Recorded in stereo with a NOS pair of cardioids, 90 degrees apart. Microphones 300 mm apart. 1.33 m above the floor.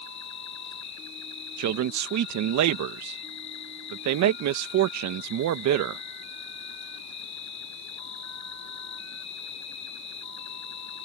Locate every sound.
0.0 s an insect: 65° left
1.6 s a man speaking: 65° right